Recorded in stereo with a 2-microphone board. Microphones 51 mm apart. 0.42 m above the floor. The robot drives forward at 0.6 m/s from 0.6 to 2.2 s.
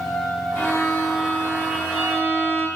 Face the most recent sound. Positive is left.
turn(degrees=35)  # may be behind; listen again after turning